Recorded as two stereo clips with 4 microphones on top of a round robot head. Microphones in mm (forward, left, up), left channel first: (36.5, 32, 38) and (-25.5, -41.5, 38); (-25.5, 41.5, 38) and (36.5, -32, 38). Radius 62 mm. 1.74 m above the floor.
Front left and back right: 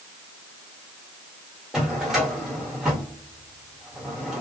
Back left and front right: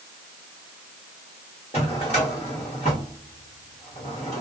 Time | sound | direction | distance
1.7 | a drawer | 145° left | 1.4 m